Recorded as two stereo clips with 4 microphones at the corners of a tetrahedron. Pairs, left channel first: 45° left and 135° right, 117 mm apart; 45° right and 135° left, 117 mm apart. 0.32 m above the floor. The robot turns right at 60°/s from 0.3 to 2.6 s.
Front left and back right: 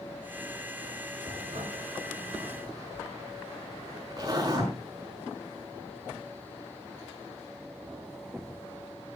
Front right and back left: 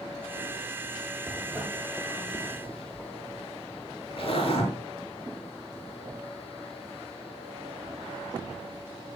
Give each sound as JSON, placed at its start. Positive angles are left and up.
{"t": 1.3, "sound": "a zipper", "azimuth_deg": -165, "distance_m": 5.5}